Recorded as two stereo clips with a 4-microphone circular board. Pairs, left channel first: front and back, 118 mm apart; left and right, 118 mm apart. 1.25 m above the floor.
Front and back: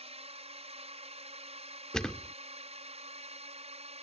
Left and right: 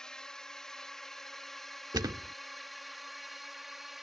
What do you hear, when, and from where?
0.0 s a drone: 175° left; by 4.0 s straight behind
1.9 s a thud: 80° right